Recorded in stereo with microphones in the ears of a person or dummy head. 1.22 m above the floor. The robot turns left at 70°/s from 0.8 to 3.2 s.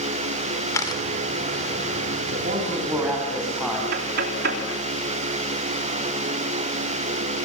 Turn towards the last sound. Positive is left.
turn(degrees=-60)  # may be behind; listen again after turning